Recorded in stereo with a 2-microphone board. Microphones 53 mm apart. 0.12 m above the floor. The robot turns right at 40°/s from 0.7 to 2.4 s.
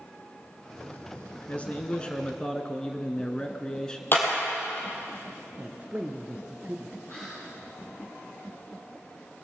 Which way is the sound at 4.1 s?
45° left (ahead or behind).